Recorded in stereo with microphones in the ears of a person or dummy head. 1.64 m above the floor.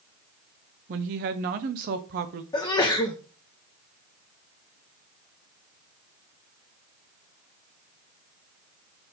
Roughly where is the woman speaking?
Right.